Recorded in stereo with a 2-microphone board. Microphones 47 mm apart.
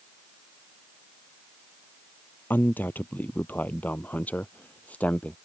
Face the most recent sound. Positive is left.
turn(degrees=25)  # may be behind; listen again after turning